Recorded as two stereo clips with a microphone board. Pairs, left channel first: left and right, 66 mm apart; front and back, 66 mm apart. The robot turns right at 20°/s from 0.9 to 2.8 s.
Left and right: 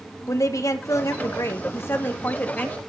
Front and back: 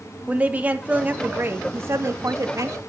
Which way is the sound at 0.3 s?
115° left.